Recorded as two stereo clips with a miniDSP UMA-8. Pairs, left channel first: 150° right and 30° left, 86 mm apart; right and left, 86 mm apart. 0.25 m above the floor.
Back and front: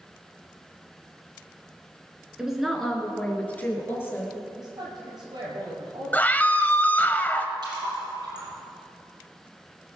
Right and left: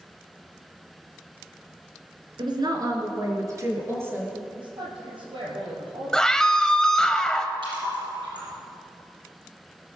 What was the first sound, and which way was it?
A woman speaking, 110° left.